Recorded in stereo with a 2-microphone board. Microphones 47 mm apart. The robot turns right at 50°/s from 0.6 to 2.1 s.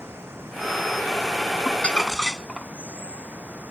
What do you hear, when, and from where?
0.0 s running water: 120° right; by 3.7 s 45° right
1.6 s crumpling: 35° left (ahead or behind); by 2.7 s 10° left (ahead or behind)